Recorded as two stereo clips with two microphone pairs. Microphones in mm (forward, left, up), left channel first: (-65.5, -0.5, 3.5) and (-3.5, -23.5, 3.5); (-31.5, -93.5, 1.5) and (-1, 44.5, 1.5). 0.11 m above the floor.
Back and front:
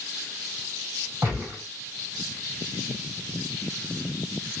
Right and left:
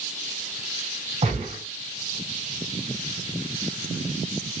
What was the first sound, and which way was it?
A gunshot, 35° left.